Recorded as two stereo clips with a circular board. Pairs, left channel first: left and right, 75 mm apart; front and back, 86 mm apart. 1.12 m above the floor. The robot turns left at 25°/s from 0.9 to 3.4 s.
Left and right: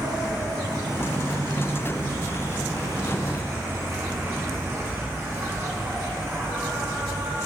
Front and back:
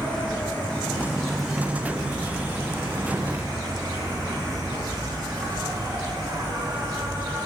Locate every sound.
0.0 s an insect: 75° right, 1.6 m; by 7.5 s 140° right, 1.6 m